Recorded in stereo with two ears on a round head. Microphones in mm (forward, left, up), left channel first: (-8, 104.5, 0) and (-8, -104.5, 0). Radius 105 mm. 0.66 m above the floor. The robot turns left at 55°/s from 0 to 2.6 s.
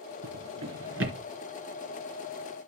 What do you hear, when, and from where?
0.2 s a drawer: 70° right (ahead or behind), 2.5 m; by 1.2 s 60° right (ahead or behind), 2.5 m